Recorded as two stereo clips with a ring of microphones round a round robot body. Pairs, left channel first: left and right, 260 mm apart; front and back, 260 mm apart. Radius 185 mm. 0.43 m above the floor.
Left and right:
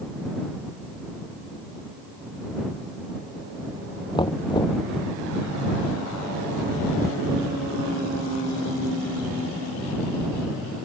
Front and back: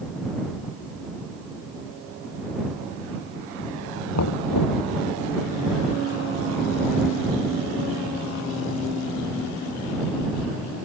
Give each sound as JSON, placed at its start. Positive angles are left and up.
{"t": 4.2, "sound": "knocking", "azimuth_deg": 15}